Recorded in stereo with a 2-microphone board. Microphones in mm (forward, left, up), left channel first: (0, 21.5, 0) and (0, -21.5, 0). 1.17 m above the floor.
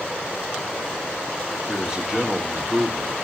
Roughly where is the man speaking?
Centre.